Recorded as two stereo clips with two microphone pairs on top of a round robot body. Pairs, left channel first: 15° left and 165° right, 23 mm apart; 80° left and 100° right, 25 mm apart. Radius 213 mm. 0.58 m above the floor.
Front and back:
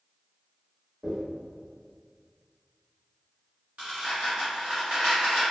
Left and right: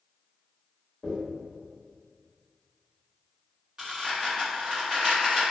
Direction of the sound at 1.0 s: 140° left.